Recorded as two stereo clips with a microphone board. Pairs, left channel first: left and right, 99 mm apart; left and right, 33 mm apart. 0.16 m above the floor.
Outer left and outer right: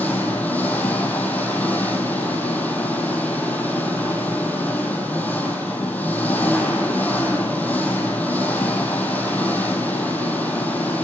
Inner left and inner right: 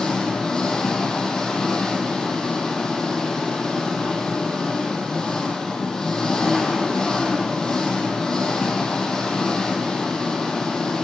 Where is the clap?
I don't hear a clap.